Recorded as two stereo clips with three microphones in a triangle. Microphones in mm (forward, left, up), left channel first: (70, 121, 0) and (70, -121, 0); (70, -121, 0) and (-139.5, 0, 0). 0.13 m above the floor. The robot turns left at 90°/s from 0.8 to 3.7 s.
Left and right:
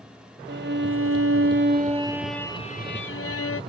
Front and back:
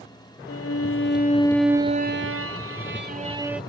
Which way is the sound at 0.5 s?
45° right.